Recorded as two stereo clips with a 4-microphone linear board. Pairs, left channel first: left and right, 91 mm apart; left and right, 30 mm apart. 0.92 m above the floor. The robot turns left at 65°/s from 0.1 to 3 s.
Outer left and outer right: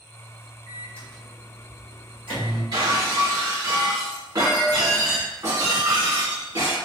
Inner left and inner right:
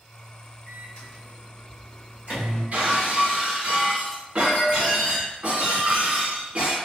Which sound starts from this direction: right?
Breaking glass, at 2.7 s.